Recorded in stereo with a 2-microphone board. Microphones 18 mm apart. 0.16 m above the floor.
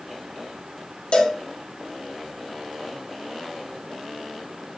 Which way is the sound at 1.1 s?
75° left (ahead or behind).